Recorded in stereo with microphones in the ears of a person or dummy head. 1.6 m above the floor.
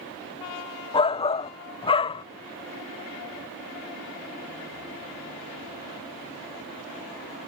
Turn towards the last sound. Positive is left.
turn(degrees=25)  # may be behind; listen again after turning